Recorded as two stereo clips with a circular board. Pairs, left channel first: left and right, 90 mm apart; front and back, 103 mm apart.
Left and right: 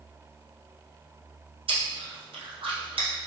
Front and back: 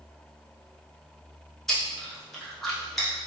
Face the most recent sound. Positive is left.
turn(degrees=-85)